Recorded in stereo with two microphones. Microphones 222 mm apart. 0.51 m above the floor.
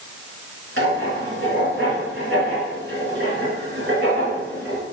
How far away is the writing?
About 3 m.